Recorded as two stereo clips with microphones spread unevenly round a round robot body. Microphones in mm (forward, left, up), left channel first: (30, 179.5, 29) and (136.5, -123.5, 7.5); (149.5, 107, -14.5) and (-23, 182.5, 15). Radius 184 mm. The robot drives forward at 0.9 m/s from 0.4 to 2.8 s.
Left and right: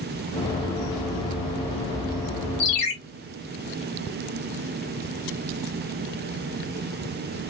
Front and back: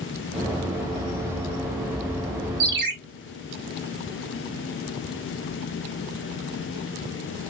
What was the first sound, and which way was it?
A ringtone, 125° left.